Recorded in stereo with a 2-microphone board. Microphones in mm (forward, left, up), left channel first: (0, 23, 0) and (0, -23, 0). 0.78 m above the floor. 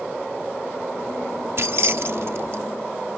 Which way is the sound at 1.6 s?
60° right (ahead or behind).